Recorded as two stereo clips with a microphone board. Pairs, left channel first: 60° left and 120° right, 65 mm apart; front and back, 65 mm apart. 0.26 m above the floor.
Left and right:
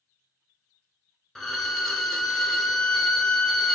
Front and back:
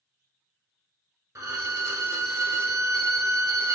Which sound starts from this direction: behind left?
A violin, at 1.4 s.